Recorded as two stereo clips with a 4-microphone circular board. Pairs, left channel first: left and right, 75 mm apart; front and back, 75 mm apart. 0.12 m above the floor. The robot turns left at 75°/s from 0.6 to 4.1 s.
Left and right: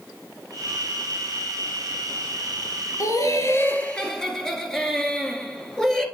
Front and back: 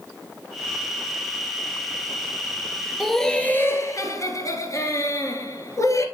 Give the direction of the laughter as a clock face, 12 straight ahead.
9 o'clock.